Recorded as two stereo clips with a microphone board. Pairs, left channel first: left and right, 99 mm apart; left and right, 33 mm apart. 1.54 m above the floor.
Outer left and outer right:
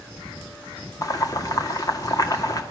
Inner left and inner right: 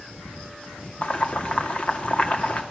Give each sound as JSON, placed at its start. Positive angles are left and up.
{"t": 1.0, "sound": "boiling", "side_deg": 40, "distance_m": 2.0}